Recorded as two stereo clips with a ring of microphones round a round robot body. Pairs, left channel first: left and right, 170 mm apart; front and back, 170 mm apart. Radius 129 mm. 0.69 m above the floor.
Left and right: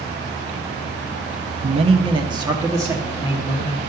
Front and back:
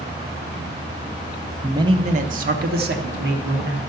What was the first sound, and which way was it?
A man speaking, 110° right.